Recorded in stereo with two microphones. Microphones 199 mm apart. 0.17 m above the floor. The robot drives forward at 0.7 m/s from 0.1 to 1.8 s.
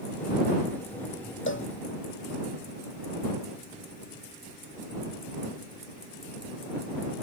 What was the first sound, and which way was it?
A cowbell, 75° left (ahead or behind).